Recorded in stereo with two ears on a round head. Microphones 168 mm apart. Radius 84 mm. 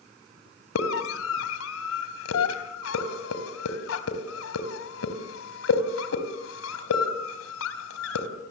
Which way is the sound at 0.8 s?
80° left.